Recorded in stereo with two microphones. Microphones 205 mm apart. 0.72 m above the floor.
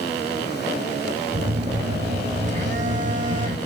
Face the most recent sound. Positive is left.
turn(degrees=-35)  # may be behind; listen again after turning